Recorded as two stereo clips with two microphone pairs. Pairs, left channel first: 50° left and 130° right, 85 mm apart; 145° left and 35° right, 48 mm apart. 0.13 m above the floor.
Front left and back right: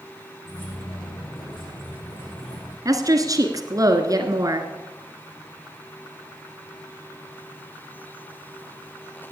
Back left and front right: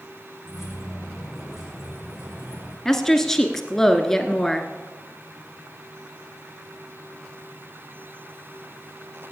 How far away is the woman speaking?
About 1.5 m.